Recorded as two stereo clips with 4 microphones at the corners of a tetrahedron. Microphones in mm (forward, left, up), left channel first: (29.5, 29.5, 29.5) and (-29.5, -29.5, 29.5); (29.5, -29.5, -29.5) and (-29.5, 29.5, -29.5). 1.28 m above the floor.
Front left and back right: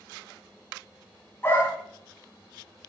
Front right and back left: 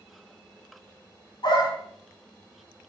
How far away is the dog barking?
About 5 m.